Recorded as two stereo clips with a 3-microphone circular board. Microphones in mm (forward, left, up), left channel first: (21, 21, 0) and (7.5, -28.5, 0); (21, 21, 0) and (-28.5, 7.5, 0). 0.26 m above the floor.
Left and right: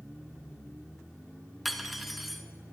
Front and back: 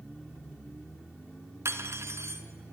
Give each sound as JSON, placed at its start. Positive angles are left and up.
{"t": 1.6, "sound": "cutlery clinking", "azimuth_deg": 165, "distance_m": 1.6}